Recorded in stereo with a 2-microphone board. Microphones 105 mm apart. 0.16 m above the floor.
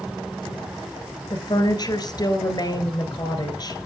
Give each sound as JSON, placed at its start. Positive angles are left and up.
{"t": 1.3, "sound": "a woman speaking", "side_deg": 45, "distance_m": 2.0}